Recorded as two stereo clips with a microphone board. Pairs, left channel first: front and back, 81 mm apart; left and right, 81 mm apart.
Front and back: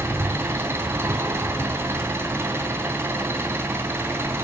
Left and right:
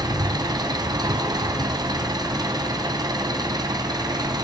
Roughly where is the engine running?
Behind right.